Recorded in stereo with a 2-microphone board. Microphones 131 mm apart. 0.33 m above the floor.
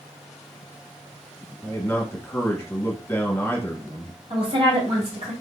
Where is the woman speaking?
50° right (ahead or behind), 2 m.